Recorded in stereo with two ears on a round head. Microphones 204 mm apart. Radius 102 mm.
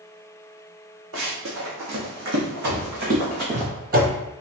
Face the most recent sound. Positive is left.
turn(degrees=-25)  # may be behind; listen again after turning